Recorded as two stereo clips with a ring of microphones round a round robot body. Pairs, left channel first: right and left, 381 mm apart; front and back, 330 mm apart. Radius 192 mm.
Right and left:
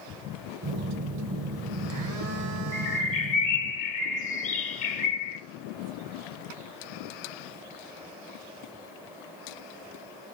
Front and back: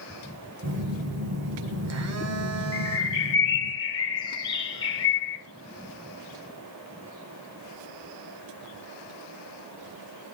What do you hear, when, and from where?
0.6 s a phone buzzing: 135° left, 1.0 m
2.7 s a bird: 55° right, 1.3 m